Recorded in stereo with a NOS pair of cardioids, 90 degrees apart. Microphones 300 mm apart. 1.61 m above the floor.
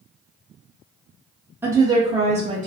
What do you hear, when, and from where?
1.6 s a woman speaking: 5° right, 0.6 m; by 2.7 s 25° right, 1.1 m